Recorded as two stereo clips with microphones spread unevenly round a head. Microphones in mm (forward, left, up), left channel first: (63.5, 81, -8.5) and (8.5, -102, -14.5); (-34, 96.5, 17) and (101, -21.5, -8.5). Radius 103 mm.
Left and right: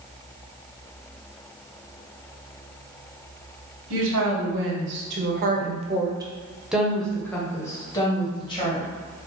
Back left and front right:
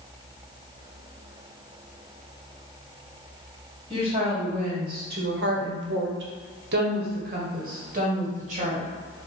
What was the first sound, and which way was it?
A woman speaking, 105° right.